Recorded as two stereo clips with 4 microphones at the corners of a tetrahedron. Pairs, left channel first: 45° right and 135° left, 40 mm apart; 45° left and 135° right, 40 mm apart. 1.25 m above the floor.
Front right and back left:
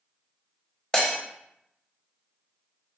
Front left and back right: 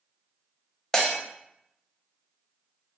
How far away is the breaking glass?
About 1.1 m.